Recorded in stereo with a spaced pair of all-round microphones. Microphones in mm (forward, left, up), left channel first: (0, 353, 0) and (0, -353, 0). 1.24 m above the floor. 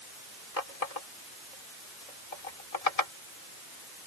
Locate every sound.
0.6 s a running tap: 60° left (ahead or behind)